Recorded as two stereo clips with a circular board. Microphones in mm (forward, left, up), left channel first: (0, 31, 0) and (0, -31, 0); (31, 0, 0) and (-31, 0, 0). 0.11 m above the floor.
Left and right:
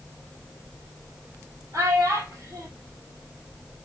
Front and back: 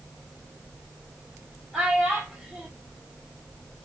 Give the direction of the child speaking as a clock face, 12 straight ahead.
3 o'clock.